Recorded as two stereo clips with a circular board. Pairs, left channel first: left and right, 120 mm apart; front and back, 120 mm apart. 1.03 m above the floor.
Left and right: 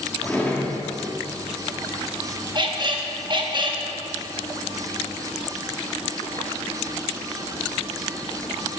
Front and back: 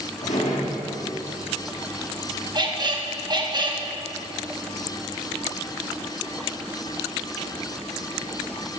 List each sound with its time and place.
0.2 s a drawer: 15° left, 1.1 m
2.5 s a squeak: 135° right, 0.7 m